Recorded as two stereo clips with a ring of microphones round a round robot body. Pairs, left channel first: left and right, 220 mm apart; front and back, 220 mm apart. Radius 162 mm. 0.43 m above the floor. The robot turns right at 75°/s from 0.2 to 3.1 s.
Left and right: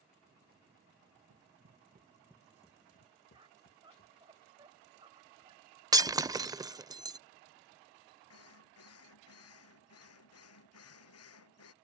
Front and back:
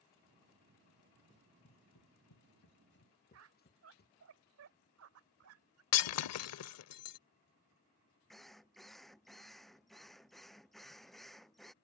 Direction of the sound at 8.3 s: 90° left.